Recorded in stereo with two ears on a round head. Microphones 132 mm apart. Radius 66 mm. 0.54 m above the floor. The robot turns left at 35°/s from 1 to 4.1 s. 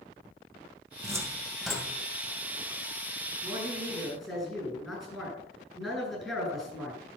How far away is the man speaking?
About 7.5 m.